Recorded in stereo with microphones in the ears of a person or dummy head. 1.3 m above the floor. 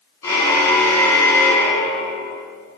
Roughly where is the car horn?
Centre.